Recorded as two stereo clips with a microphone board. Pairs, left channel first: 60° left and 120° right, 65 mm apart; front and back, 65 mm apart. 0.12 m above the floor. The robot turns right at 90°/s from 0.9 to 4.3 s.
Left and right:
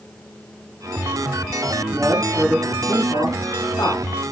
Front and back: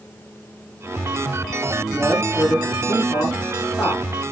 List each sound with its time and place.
1.9 s a man speaking: 85° right, 4 m; by 4.3 s 130° left, 4 m